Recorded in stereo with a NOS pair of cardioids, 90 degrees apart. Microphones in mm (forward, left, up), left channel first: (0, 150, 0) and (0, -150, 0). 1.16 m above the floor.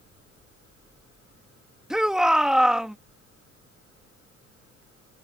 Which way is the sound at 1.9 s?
Straight ahead.